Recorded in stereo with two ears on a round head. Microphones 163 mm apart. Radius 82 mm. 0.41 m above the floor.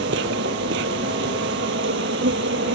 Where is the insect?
70° right (ahead or behind).